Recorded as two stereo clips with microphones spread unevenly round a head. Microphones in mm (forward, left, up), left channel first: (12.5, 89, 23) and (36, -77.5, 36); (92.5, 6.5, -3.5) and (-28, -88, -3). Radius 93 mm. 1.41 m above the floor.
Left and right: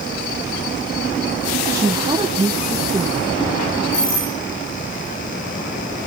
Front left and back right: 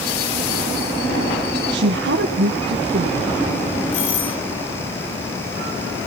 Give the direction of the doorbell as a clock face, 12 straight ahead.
10 o'clock.